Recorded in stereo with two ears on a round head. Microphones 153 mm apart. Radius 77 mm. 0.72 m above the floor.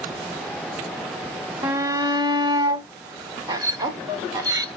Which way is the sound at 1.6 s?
25° right (ahead or behind).